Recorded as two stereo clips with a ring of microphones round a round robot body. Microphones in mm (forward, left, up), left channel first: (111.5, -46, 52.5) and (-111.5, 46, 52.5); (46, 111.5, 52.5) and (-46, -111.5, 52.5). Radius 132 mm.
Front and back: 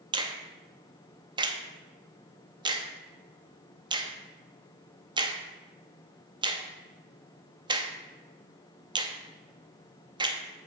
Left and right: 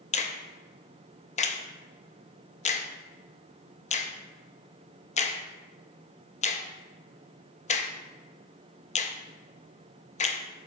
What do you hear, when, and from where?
0.1 s a finger snap: 100° left, 0.6 m